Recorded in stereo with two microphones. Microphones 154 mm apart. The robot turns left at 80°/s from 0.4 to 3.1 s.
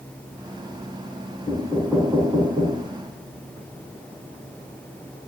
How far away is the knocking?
About 4 m.